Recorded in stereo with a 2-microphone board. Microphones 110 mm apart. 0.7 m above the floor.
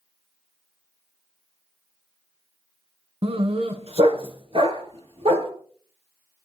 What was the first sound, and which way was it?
A dog barking, 65° right (ahead or behind).